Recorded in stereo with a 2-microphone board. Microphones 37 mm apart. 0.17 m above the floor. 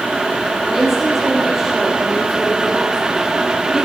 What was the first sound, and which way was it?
A woman speaking, 10° right (ahead or behind).